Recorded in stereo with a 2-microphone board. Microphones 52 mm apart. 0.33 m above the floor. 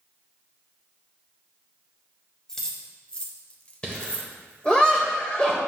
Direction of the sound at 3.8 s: 20° left (ahead or behind).